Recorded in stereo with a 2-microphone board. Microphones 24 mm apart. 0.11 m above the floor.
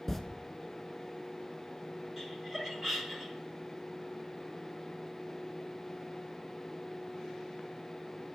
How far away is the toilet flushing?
About 0.5 m.